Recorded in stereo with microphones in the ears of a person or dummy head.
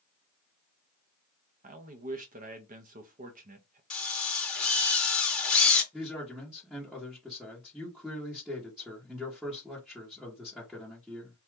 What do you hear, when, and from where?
1.6 s a man speaking: 30° right (ahead or behind), 0.7 m
3.9 s a drill: 10° left (ahead or behind), 1.1 m
5.9 s a man speaking: centre (ahead or behind), 0.9 m